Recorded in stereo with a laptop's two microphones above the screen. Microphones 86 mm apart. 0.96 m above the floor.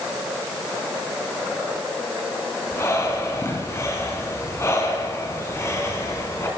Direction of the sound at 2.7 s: 30° left (ahead or behind).